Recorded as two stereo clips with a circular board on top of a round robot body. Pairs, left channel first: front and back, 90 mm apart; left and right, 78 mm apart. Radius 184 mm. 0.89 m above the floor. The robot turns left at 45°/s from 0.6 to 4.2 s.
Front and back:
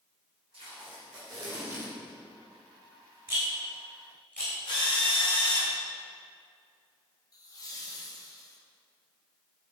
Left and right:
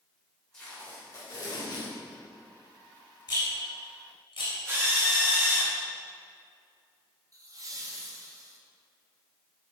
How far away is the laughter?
About 1.8 m.